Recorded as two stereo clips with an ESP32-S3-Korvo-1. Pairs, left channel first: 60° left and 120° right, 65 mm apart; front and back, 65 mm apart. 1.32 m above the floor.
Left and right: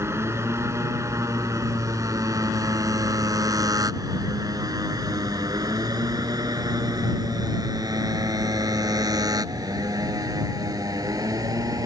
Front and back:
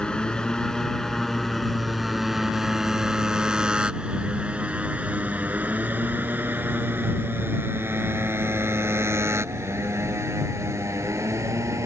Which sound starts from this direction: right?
A motorcycle, at 0.0 s.